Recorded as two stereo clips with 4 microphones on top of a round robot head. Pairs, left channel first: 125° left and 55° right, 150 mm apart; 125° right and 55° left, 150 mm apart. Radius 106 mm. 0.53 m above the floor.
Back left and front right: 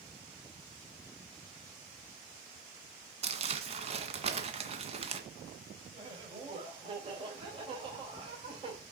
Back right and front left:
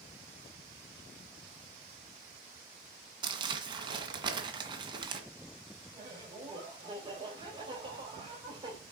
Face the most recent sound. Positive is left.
turn(degrees=-5)